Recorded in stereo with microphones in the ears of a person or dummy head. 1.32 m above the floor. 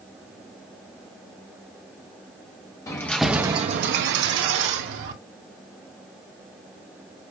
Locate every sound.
2.9 s keys jangling: 20° left (ahead or behind), 1.1 m; by 5.1 s 70° right (ahead or behind), 1.9 m